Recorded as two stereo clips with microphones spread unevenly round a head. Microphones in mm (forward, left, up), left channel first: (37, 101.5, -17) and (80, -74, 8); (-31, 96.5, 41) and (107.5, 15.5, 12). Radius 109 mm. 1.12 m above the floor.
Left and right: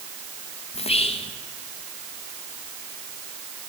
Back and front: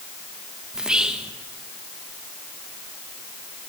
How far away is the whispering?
About 1.6 m.